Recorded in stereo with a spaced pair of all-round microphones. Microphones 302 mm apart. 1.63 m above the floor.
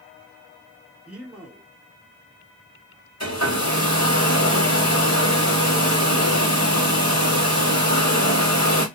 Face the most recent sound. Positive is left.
turn(degrees=55)  # may be behind; listen again after turning